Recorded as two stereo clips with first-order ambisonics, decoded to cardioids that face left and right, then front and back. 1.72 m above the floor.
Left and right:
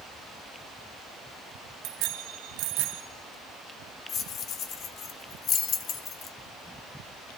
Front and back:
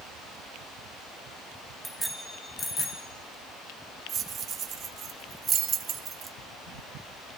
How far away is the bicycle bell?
About 2 m.